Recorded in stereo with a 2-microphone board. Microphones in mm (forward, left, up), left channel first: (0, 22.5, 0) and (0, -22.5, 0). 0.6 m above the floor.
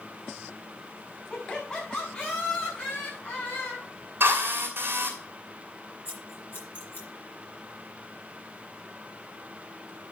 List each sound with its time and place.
1.3 s laughter: 20° left (ahead or behind), 5.5 m; by 3.9 s 50° left (ahead or behind), 4 m
4.2 s a drill: 50° right (ahead or behind), 3.5 m
6.0 s scissors: 50° left (ahead or behind), 5 m